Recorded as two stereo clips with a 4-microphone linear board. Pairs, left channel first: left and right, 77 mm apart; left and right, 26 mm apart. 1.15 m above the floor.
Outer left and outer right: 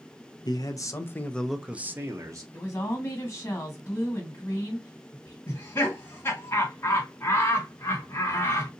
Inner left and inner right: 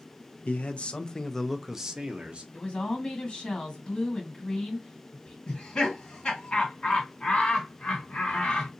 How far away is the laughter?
About 1.7 m.